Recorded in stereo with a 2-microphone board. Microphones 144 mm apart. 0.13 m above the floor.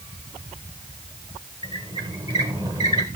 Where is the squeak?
30° right (ahead or behind), 1.8 m.